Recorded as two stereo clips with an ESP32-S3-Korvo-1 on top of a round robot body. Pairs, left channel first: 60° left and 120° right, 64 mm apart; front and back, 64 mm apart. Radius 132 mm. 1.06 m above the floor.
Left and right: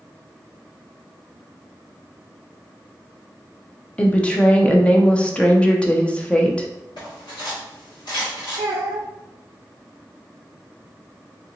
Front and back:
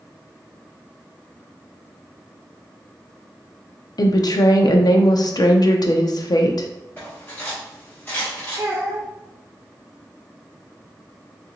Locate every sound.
4.0 s a woman speaking: 15° right, 0.6 m
7.0 s cutlery clinking: 65° left, 1.5 m
8.6 s a child speaking: 130° right, 0.6 m